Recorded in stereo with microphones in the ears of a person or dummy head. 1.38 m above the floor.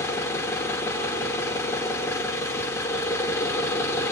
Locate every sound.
0.0 s an engine running: 15° left (ahead or behind), 1.8 m